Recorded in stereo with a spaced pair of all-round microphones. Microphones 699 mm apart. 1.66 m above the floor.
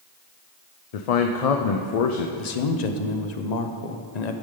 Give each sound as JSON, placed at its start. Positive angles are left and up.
{"t": 0.9, "sound": "a man speaking", "side_deg": 60, "distance_m": 0.6}
{"t": 2.4, "sound": "a man speaking", "side_deg": 70, "distance_m": 0.8}